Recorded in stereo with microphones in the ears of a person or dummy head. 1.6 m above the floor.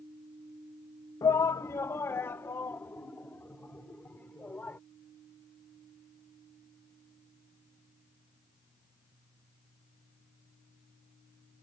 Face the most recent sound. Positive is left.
turn(degrees=10)  # may be behind; listen again after turning